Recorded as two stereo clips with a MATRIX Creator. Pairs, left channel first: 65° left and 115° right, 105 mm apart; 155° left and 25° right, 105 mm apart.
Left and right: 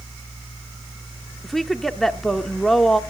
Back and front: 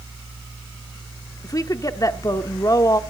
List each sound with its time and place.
1.4 s a woman speaking: 155° left, 0.8 m